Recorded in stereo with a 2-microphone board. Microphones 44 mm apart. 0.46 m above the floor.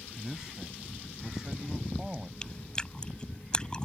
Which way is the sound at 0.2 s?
15° right (ahead or behind).